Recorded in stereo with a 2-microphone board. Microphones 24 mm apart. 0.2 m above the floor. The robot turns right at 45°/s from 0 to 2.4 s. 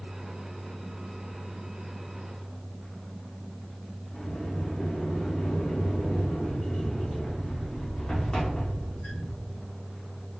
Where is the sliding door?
30° left (ahead or behind), 2.5 m.